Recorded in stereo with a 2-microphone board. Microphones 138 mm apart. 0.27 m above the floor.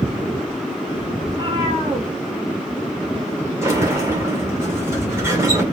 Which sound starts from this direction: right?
A cat meowing, at 1.2 s.